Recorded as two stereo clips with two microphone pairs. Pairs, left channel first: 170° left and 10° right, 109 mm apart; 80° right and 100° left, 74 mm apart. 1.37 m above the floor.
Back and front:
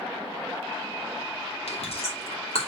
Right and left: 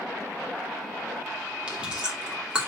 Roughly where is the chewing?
Behind.